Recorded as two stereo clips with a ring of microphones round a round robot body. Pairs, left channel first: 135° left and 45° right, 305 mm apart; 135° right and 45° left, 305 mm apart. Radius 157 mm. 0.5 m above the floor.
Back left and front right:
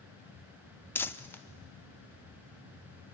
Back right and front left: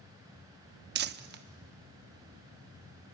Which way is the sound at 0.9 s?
55° left.